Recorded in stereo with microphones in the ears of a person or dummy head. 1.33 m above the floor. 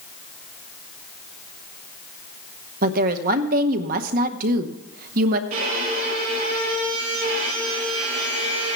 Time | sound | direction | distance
2.8 | a woman speaking | 50° right (ahead or behind) | 0.8 m
5.5 | a violin | 40° right (ahead or behind) | 4.5 m